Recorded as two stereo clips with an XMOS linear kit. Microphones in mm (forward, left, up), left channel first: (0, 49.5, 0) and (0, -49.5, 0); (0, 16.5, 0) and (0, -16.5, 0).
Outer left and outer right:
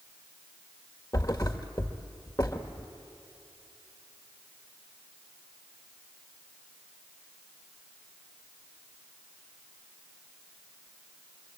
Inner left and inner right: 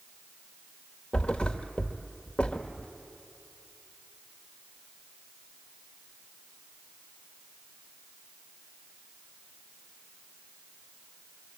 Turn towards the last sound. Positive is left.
turn(degrees=35)  # may be behind; listen again after turning